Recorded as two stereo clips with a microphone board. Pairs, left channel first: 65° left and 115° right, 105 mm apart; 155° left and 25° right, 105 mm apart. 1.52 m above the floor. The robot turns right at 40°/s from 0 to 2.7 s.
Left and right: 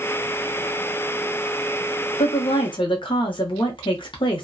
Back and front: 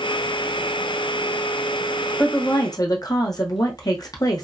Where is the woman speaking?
85° left, 0.8 m; by 4.4 s 105° left, 0.8 m.